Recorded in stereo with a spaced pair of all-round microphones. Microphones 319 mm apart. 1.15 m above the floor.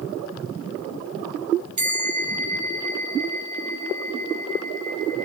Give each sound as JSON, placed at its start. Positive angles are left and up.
{"t": 1.8, "sound": "a bell", "side_deg": -60, "distance_m": 0.7}